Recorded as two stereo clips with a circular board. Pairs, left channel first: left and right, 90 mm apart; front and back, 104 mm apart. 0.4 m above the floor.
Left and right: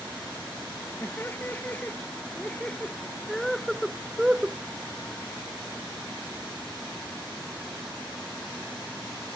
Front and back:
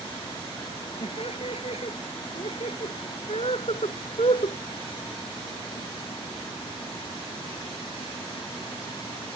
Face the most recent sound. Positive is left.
turn(degrees=-15)